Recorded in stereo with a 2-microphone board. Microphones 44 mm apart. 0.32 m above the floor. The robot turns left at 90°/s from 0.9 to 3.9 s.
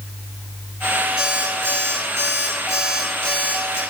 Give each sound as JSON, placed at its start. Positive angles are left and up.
{"t": 1.2, "sound": "an alarm clock", "azimuth_deg": -15, "distance_m": 2.5}